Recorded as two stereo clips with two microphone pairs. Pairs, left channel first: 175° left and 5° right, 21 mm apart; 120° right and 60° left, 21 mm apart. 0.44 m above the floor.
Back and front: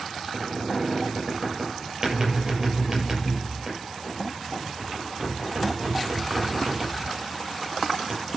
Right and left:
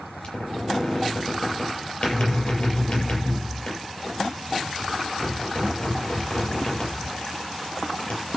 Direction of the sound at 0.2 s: 70° right.